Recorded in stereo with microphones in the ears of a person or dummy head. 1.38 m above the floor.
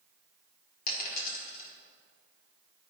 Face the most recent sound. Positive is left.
turn(degrees=50)  # may be behind; listen again after turning